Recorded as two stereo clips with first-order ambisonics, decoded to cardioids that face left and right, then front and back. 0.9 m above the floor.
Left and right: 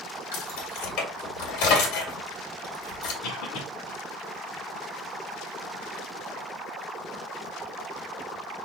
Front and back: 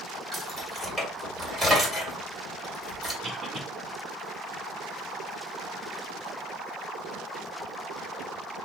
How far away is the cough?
About 1.8 m.